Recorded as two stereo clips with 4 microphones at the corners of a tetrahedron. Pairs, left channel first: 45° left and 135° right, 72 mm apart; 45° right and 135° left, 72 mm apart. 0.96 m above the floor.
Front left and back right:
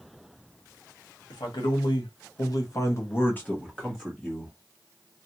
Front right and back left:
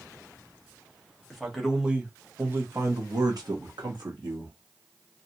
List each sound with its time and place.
1.3 s a man speaking: 45° left, 1.5 m; by 4.5 s 140° left, 1.5 m